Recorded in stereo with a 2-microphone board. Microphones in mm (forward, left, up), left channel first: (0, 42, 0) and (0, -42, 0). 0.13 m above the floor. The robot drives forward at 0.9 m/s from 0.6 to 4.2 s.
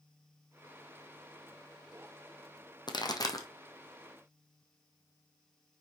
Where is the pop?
60° left (ahead or behind), 1.3 m; by 3.5 s 45° left (ahead or behind), 1.6 m.